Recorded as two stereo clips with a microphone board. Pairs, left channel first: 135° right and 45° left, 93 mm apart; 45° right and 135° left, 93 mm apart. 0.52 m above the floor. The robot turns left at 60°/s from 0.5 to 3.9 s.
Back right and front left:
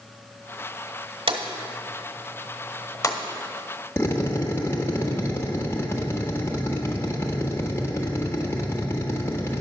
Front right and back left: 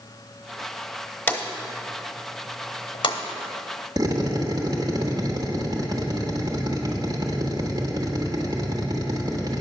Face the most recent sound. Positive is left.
turn(degrees=170)